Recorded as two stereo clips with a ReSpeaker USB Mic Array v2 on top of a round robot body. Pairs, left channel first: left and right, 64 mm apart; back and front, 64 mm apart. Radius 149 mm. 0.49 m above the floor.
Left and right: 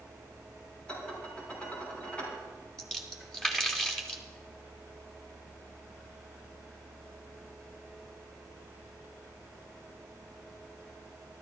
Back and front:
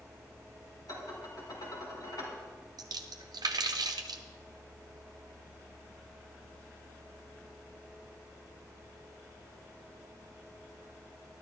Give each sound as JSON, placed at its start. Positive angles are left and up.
{"t": 0.9, "sound": "dishes clattering", "azimuth_deg": 160, "distance_m": 4.5}
{"t": 2.8, "sound": "a splash", "azimuth_deg": 10, "distance_m": 0.7}